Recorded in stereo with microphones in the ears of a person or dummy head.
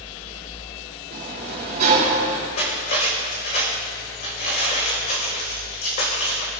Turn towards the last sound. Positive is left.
turn(degrees=50)  # may be behind; listen again after turning